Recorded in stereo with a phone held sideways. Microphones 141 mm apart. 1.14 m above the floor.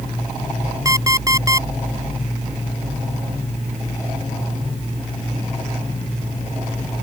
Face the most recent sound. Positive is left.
turn(degrees=-25)  # may be behind; listen again after turning